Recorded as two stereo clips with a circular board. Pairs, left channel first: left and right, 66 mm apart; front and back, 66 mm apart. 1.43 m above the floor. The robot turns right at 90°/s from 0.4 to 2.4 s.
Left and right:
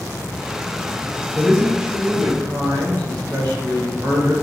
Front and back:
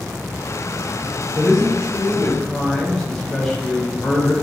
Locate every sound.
1.4 s a man speaking: 175° left, 1.1 m; by 4.3 s 90° right, 1.1 m